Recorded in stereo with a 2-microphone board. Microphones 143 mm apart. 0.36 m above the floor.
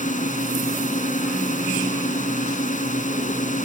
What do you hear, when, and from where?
0.0 s a drone: 60° left (ahead or behind)